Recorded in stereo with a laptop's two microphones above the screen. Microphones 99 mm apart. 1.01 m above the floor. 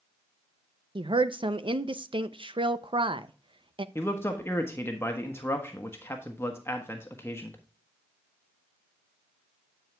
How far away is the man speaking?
About 1.3 m.